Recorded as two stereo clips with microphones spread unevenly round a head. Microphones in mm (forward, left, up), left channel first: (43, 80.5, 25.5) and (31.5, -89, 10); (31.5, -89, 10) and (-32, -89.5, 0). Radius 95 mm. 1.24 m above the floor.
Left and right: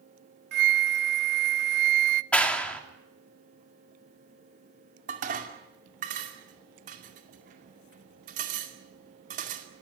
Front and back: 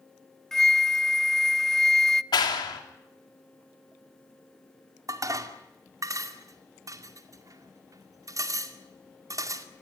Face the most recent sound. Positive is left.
turn(degrees=-145)